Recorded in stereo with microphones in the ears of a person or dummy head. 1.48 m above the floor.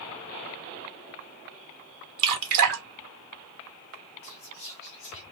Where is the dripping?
45° right (ahead or behind), 1.1 m.